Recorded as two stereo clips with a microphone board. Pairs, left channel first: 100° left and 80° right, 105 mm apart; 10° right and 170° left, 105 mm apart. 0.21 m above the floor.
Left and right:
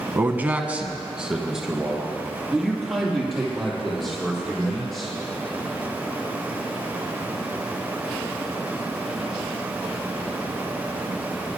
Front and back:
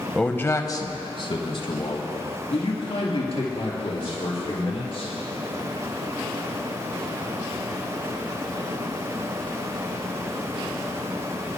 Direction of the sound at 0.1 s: 85° right.